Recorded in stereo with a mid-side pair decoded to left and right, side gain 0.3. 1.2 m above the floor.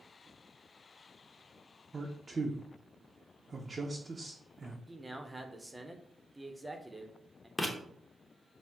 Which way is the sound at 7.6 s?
15° left.